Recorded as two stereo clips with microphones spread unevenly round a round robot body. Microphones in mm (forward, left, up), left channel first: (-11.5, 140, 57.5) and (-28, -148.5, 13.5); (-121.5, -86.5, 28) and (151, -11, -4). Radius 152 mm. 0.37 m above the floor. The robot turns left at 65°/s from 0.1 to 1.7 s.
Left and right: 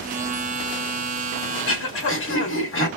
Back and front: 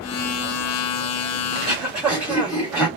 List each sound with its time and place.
1.5 s throat clearing: 100° left, 1.5 m; by 2.9 s 90° left, 1.5 m